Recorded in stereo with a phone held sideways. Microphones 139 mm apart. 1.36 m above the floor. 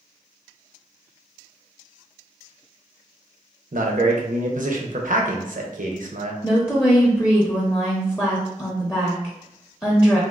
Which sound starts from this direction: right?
A man speaking, at 3.7 s.